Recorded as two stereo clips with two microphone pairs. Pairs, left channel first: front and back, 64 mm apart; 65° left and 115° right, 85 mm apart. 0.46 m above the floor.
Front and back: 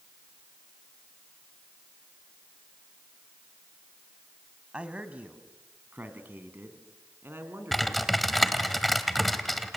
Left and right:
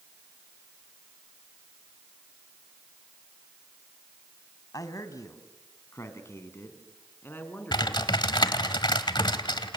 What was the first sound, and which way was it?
A man speaking, 110° left.